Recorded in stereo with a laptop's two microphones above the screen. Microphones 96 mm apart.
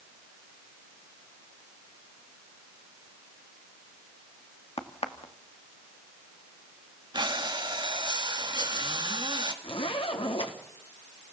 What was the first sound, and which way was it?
A crack, 80° left.